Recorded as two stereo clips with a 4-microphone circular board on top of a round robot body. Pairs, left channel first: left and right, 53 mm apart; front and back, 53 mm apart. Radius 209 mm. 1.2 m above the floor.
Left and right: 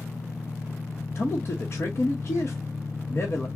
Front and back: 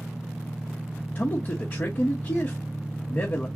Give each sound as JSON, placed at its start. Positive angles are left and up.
{"t": 0.0, "sound": "an engine running", "azimuth_deg": 100, "distance_m": 0.7}
{"t": 1.1, "sound": "a man speaking", "azimuth_deg": 45, "distance_m": 0.9}